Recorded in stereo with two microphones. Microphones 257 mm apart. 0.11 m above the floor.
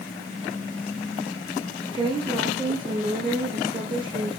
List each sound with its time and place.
1.9 s a woman speaking: 20° right (ahead or behind), 5.5 m